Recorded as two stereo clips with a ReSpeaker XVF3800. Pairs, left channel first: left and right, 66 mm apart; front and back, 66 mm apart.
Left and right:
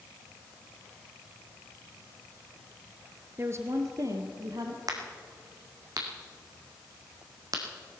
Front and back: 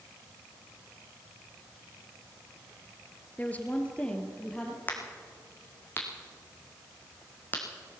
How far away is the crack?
About 2.5 m.